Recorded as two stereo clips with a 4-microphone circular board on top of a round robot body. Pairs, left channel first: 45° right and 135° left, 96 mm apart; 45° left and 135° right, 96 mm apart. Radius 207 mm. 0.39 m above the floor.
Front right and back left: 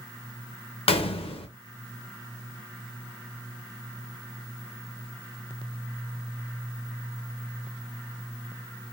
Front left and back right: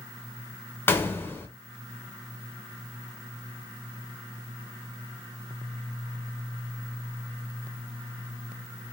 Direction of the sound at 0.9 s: 25° right.